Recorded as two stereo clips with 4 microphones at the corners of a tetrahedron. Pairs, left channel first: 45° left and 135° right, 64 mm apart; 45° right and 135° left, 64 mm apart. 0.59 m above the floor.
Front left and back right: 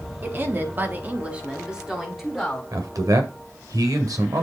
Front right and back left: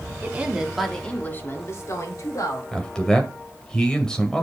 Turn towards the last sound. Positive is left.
turn(degrees=-125)